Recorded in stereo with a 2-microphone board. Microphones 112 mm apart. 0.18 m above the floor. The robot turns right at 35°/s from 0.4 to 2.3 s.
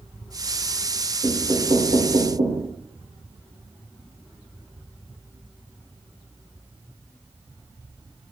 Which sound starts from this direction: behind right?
Knocking, at 1.2 s.